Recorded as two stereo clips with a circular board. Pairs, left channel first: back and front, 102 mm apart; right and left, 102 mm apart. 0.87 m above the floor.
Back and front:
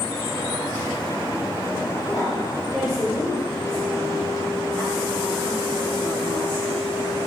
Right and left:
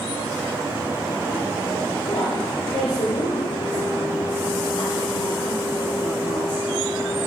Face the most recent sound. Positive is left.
turn(degrees=-90)